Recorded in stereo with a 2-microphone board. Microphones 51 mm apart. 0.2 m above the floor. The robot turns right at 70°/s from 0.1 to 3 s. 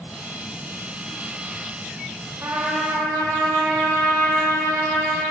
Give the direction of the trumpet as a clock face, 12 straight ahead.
4 o'clock.